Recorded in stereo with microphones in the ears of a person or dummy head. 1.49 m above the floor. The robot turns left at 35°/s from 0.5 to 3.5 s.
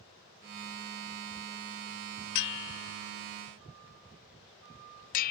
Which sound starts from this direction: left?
A bell, at 2.4 s.